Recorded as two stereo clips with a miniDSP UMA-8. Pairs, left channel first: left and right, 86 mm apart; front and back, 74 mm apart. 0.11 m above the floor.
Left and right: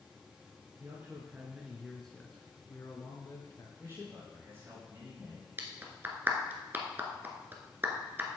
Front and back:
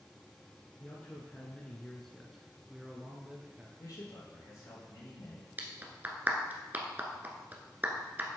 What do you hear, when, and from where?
0.8 s a man speaking: 50° right, 1.5 m; by 3.7 s 110° left, 1.9 m
3.8 s a man speaking: 35° right, 4 m
5.6 s a clap: 135° right, 1.2 m